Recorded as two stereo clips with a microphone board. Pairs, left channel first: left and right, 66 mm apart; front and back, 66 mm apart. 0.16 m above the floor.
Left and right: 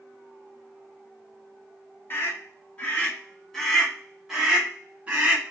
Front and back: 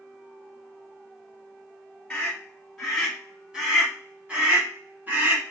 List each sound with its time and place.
2.1 s a scream: 75° left, 1.5 m; by 5.5 s 140° right, 1.7 m